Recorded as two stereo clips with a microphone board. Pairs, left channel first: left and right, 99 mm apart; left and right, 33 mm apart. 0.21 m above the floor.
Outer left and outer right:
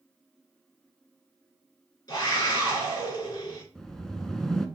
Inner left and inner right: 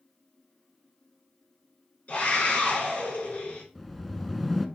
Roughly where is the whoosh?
Centre.